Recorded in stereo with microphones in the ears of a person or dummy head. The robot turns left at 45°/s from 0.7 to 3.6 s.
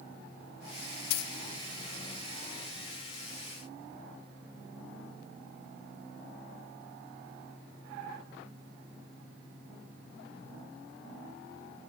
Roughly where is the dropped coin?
Left.